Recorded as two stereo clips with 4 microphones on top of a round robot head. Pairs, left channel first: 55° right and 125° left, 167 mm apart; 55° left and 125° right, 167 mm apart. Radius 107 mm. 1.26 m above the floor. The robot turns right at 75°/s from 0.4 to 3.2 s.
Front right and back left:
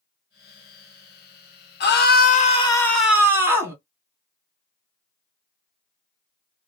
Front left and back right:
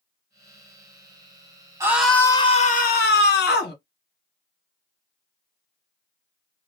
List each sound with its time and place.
1.8 s a scream: 55° right, 1.4 m; by 3.8 s 50° left, 1.4 m